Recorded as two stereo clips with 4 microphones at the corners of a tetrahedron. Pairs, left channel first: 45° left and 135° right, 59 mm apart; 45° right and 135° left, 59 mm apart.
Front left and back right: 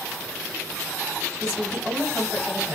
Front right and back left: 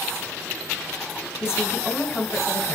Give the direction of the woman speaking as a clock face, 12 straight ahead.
3 o'clock.